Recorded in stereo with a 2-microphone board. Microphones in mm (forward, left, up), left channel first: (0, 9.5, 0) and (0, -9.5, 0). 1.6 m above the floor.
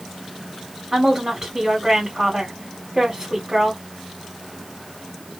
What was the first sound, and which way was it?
A woman speaking, 25° right (ahead or behind).